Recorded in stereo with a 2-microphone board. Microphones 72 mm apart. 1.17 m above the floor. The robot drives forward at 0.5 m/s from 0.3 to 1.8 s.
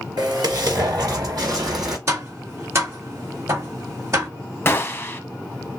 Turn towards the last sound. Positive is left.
turn(degrees=30)  # may be behind; listen again after turning